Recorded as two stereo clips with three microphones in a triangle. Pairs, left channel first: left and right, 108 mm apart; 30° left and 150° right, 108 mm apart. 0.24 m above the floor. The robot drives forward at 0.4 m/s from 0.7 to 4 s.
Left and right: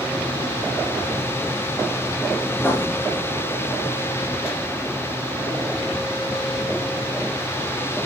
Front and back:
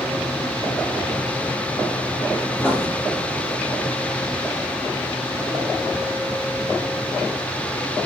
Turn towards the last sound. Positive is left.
turn(degrees=155)